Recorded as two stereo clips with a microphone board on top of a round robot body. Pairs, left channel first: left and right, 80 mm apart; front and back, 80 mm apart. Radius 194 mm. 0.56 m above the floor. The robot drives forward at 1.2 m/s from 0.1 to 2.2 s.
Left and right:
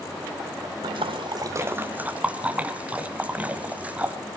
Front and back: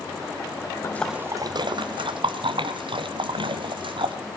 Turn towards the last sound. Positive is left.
turn(degrees=-165)